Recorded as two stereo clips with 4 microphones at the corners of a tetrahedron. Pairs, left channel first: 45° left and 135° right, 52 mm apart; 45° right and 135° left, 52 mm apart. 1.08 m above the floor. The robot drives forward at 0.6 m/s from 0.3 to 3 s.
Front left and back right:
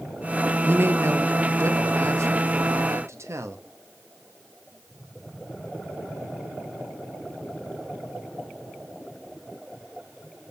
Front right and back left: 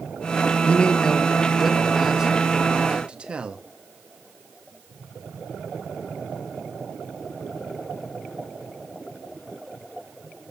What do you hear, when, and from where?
0.6 s a man speaking: 100° right, 0.9 m; by 3.7 s 155° right, 1.8 m